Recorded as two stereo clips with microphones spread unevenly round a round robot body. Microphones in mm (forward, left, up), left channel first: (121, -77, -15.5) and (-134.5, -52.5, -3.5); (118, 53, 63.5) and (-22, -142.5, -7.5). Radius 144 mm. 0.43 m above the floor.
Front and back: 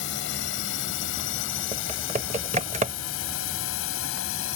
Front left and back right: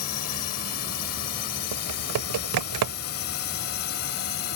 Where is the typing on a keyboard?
120° right.